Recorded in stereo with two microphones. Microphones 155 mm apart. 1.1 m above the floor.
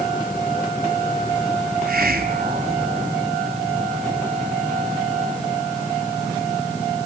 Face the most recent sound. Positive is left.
turn(degrees=-75)  # may be behind; listen again after turning